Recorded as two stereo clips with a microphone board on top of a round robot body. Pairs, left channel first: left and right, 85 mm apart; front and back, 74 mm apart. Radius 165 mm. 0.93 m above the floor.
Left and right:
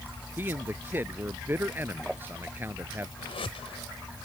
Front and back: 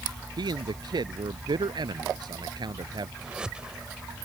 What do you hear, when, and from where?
0.4 s a man speaking: 155° right
3.2 s a whoosh: 100° left